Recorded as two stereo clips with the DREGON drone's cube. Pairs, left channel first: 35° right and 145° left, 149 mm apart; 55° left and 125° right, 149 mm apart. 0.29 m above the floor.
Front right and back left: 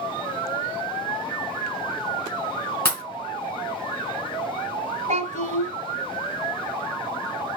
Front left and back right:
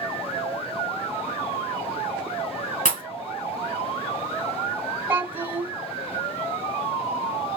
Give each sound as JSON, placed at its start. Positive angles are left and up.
{"t": 2.9, "sound": "a pop", "azimuth_deg": 40, "distance_m": 2.5}
{"t": 5.1, "sound": "a child speaking", "azimuth_deg": 165, "distance_m": 1.7}